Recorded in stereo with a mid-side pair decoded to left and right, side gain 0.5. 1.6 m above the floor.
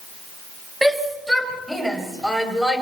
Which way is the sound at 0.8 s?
10° right.